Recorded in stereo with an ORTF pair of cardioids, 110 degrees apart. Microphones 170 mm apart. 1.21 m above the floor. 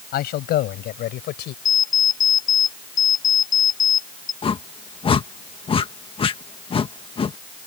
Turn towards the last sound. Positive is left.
turn(degrees=35)